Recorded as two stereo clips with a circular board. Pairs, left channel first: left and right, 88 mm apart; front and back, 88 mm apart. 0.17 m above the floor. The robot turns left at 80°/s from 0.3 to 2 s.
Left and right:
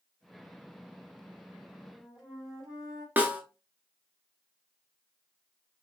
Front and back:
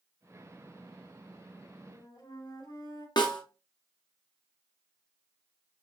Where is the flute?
10° left, 3 m; by 3.1 s straight ahead, 3 m.